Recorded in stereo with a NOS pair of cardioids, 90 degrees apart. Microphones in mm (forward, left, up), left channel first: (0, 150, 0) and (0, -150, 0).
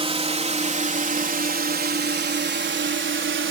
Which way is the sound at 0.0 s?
20° right.